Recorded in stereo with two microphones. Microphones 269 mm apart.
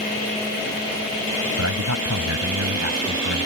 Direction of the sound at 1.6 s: 80° right.